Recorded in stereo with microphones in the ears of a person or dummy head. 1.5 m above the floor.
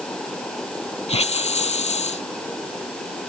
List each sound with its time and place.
1.1 s a hiss: 40° left (ahead or behind)